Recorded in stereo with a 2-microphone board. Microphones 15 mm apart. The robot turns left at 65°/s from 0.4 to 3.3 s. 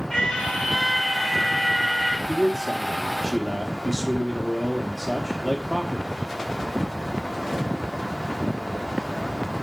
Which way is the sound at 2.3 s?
70° left.